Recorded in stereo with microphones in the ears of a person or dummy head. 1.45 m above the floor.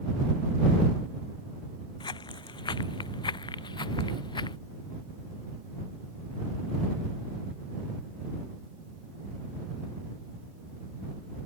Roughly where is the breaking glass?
No breaking glass in this recording.